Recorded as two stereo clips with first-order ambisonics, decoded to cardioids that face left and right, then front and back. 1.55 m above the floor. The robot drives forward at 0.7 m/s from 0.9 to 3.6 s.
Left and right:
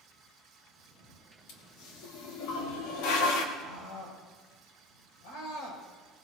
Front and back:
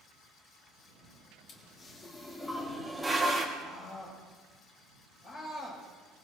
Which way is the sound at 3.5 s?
80° left.